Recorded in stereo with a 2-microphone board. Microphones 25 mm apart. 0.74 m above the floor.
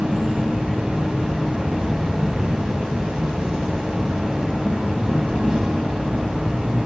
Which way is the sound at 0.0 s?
45° right (ahead or behind).